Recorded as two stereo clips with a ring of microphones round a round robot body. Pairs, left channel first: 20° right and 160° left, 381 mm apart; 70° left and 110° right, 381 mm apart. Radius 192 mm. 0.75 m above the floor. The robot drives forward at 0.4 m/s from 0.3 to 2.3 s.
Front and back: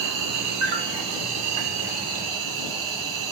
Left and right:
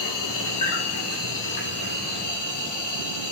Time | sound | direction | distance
0.0 | an insect | 110° left | 1.2 m